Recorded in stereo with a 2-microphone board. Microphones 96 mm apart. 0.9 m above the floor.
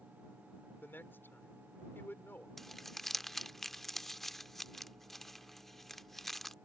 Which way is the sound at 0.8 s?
20° left (ahead or behind).